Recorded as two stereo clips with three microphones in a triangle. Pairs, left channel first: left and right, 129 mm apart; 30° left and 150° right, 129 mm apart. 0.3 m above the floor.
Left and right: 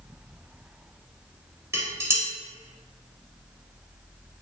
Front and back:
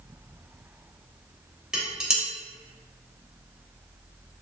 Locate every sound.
1.7 s dishes clattering: 75° right, 0.7 m